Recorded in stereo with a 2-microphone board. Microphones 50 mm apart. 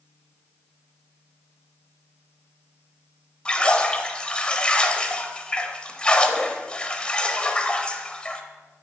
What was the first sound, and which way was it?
A splash, 20° left (ahead or behind).